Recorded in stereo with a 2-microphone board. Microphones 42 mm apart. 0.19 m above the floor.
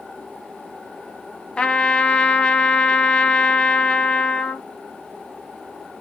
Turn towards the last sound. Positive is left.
turn(degrees=25)  # may be behind; listen again after turning